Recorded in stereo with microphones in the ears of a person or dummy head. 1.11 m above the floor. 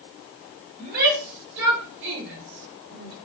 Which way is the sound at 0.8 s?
45° right (ahead or behind).